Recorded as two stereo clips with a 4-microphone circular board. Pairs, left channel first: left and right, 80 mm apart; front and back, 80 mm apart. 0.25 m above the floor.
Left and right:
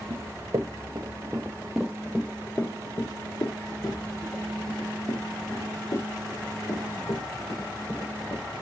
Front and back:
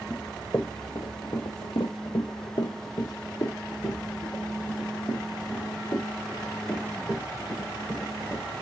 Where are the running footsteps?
65° right, 1.2 m; by 8.5 s 65° left, 4.5 m.